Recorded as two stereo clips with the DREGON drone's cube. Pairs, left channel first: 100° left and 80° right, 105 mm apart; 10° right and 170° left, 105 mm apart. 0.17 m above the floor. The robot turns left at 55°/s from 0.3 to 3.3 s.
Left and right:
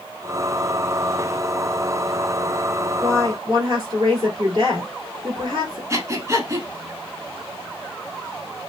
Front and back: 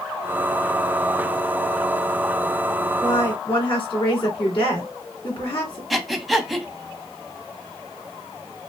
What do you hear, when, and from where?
3.0 s a woman speaking: 25° right, 2.0 m; by 5.8 s 40° right, 2.0 m
5.9 s breathing: 100° right, 0.5 m